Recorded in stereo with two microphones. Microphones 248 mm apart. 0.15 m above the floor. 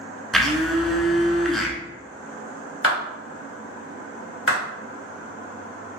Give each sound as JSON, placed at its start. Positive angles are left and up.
{"t": 0.3, "sound": "a blender", "side_deg": 0, "distance_m": 0.5}
{"t": 2.8, "sound": "a clap", "side_deg": 50, "distance_m": 1.9}